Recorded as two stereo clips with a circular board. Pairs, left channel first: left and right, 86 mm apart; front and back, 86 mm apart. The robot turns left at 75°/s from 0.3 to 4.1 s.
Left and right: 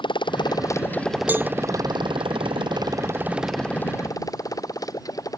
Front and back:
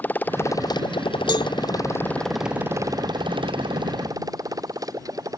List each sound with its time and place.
0.0 s a motorcycle: 70° left; by 5.4 s 135° left
1.3 s a cowbell: 25° right; by 1.5 s 40° right